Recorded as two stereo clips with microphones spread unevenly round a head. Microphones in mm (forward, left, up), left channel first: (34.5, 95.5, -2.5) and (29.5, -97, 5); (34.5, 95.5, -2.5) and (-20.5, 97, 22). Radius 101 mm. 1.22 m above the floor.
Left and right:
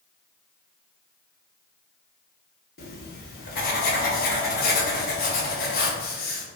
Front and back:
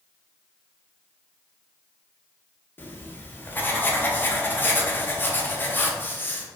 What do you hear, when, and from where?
2.8 s writing: 70° left, 0.8 m